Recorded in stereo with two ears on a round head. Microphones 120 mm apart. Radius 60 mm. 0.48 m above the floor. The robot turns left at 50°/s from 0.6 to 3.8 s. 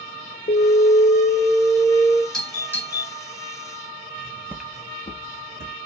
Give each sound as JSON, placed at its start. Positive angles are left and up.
{"t": 0.5, "sound": "an alarm", "azimuth_deg": 80, "distance_m": 1.1}
{"t": 2.3, "sound": "a doorbell", "side_deg": 5, "distance_m": 2.5}
{"t": 4.2, "sound": "footsteps", "side_deg": -55, "distance_m": 0.7}